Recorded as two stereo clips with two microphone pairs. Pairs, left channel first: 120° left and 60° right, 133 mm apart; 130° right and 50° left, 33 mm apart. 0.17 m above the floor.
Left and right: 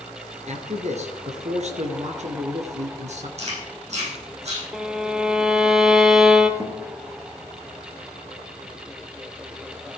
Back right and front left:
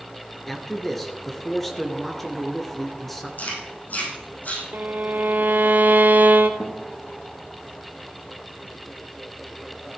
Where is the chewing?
95° right, 6.5 m.